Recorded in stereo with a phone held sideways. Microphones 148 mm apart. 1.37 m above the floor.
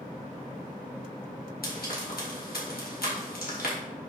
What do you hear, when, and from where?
1.6 s frying: 85° left, 3 m